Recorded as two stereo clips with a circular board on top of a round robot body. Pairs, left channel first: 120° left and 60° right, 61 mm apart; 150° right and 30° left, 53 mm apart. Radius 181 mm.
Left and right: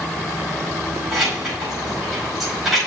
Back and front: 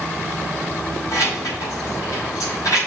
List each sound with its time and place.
1.1 s keys jangling: 145° right, 5 m